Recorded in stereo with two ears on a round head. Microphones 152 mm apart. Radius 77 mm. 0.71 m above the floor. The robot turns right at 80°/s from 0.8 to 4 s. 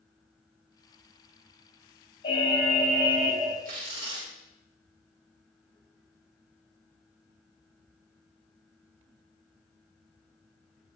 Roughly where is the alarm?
Behind left.